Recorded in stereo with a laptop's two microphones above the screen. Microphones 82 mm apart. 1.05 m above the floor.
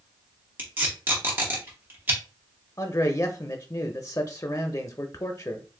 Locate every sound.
0.6 s tape being pulled: 25° right (ahead or behind), 0.9 m
2.8 s a man speaking: 45° left (ahead or behind), 0.5 m